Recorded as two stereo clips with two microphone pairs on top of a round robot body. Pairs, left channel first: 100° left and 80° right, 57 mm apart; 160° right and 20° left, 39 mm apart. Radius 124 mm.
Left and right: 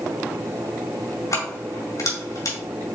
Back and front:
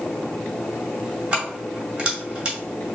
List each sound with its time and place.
1.3 s keys jangling: 95° left, 2.5 m